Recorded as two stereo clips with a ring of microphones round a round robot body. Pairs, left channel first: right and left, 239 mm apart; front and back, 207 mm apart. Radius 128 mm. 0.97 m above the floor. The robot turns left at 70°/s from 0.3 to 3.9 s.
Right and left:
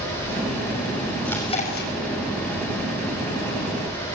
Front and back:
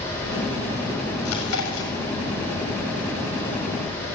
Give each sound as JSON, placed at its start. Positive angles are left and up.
{"t": 1.2, "sound": "chewing", "azimuth_deg": 0, "distance_m": 6.5}